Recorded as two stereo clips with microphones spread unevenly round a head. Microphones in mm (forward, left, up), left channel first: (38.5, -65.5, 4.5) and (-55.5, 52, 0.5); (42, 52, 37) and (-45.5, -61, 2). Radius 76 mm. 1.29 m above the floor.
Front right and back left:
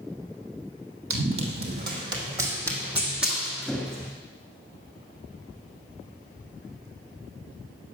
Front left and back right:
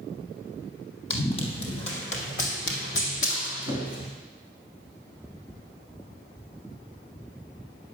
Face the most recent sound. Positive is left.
turn(degrees=30)